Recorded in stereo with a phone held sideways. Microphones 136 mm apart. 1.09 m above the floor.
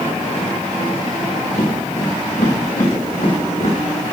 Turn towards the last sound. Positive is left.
turn(degrees=70)  # may be behind; listen again after turning